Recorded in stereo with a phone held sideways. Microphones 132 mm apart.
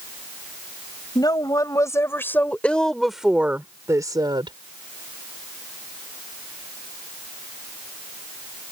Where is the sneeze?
No sneeze in this recording.